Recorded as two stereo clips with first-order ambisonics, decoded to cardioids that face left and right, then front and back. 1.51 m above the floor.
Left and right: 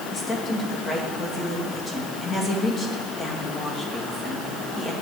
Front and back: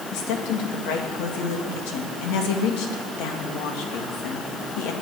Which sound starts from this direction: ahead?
A woman speaking, at 0.1 s.